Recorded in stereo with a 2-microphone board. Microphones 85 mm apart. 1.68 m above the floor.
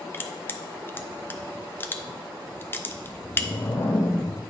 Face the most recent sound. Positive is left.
turn(degrees=55)  # may be behind; listen again after turning